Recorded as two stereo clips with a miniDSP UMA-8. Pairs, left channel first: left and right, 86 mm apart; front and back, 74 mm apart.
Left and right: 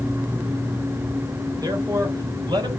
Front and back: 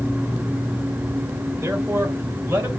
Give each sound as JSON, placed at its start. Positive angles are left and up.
{"t": 1.6, "sound": "a man speaking", "azimuth_deg": -130, "distance_m": 3.0}